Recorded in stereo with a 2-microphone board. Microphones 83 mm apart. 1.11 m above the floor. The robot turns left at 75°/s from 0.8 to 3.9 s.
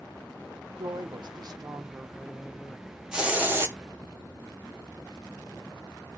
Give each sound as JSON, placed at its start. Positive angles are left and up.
{"t": 0.8, "sound": "a woman speaking", "azimuth_deg": -60, "distance_m": 0.6}
{"t": 3.1, "sound": "a hiss", "azimuth_deg": -10, "distance_m": 0.9}